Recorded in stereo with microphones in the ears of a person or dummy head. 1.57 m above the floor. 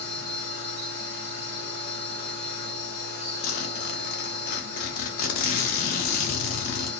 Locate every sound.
0.0 s a machine running: 70° right (ahead or behind), 0.9 m
3.4 s a zipper: 55° left (ahead or behind), 0.6 m